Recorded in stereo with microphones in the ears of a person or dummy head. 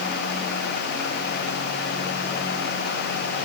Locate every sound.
Only background noise.